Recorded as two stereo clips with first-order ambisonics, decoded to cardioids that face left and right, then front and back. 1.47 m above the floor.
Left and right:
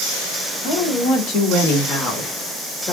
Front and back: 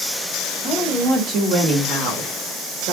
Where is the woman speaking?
105° left, 1.5 m; by 2.9 s 165° left, 1.8 m.